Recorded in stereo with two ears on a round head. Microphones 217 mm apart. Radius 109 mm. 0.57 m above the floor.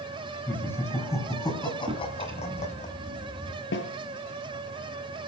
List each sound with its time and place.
0.5 s laughter: 10° left (ahead or behind), 4.5 m; by 2.9 s 30° left (ahead or behind), 3.5 m
1.9 s a drawer: 20° right (ahead or behind), 3 m
3.7 s a snare drum: 50° left (ahead or behind), 2.5 m